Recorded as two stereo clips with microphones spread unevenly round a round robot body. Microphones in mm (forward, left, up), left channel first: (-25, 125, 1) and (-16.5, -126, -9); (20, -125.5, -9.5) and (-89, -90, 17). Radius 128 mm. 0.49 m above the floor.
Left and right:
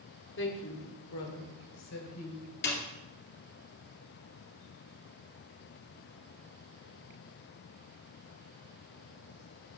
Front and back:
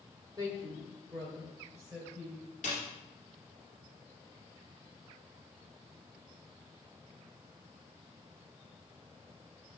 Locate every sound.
0.4 s a woman speaking: 90° left, 1.6 m; by 2.5 s 80° left, 2.5 m
2.6 s a snare drum: 45° left, 2.5 m